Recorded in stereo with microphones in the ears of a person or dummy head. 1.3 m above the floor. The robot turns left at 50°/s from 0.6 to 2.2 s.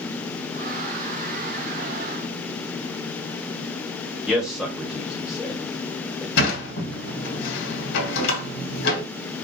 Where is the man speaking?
5° right (ahead or behind), 1.5 m.